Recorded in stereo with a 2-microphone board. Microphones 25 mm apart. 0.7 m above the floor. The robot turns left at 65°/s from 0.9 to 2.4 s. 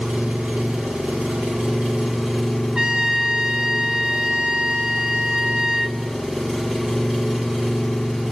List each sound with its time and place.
0.0 s an engine running: 80° right, 4 m; by 8.3 s straight behind, 4 m
2.8 s a trumpet: 25° right (ahead or behind), 0.8 m